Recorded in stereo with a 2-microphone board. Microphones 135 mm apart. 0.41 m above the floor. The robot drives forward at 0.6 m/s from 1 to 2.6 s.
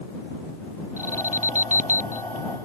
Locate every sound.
1.0 s an alarm: 65° right (ahead or behind); by 2.2 s 70° right (ahead or behind)